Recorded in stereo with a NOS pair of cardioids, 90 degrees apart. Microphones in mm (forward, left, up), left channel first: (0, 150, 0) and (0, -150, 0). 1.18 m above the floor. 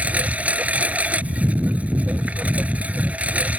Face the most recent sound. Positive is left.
turn(degrees=-5)